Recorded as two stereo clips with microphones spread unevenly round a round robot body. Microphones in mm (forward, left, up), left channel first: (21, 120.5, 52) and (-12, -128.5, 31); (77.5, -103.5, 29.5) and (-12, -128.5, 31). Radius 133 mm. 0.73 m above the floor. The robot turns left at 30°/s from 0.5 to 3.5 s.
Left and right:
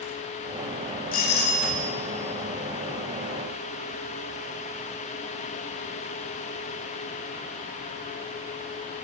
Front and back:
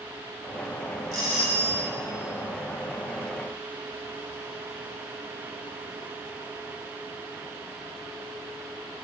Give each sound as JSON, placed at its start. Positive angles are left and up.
{"t": 1.1, "sound": "a doorbell", "azimuth_deg": 135, "distance_m": 2.0}